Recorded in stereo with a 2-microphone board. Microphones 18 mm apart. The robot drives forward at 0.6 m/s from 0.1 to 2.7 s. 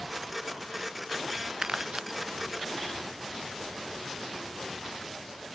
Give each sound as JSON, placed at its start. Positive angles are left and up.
{"t": 1.6, "sound": "crumpling", "side_deg": -55}